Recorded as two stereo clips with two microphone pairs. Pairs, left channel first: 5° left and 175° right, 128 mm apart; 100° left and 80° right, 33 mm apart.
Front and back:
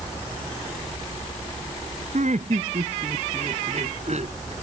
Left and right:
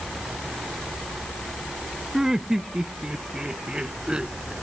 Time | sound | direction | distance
2.1 | laughter | 155° right | ?